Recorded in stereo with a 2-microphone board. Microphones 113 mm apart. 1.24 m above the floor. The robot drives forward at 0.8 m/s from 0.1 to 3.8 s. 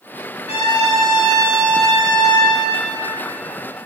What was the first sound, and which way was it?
A trumpet, 85° left.